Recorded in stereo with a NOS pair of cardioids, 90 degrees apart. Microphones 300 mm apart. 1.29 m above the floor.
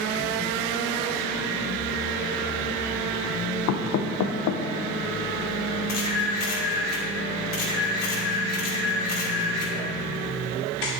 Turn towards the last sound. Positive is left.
turn(degrees=55)